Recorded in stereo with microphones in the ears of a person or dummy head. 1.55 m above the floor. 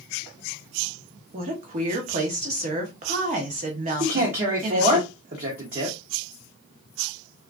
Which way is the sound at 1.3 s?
35° right (ahead or behind).